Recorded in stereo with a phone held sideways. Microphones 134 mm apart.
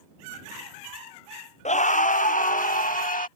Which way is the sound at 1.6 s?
60° left (ahead or behind).